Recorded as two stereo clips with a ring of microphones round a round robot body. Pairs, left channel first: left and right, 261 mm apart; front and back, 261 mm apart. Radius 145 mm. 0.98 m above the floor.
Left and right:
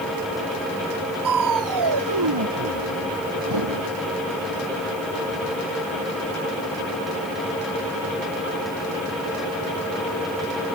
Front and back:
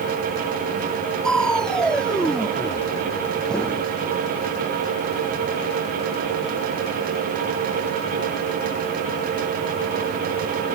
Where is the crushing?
90° right.